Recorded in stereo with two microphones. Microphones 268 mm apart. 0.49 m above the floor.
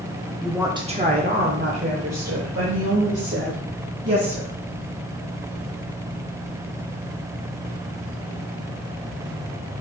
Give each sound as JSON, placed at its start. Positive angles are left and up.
{"t": 0.4, "sound": "a woman speaking", "side_deg": 0, "distance_m": 0.7}